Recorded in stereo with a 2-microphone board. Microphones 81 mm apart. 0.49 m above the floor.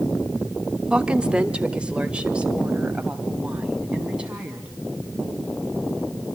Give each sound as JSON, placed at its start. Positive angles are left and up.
{"t": 0.9, "sound": "a woman speaking", "side_deg": -10, "distance_m": 0.8}